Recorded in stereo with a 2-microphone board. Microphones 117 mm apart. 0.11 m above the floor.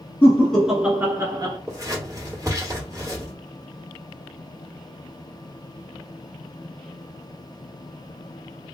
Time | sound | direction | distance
0.2 | laughter | 15° left (ahead or behind) | 1.4 m
1.7 | scissors | 30° right (ahead or behind) | 2.5 m